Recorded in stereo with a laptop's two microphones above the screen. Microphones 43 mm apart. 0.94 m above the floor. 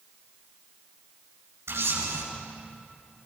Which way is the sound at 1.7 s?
85° right.